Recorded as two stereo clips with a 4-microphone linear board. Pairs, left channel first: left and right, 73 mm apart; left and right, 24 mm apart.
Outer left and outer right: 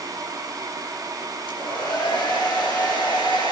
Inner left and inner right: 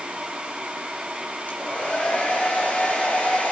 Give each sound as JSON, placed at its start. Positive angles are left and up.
{"t": 1.5, "sound": "a hair dryer", "side_deg": 85, "distance_m": 3.5}